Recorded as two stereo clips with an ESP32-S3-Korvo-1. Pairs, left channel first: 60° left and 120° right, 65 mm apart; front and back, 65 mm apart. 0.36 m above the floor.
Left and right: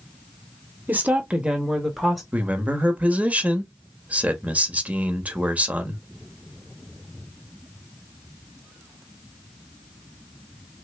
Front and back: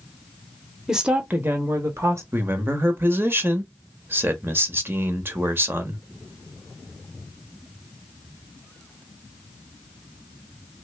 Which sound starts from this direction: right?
A woman speaking, at 0.9 s.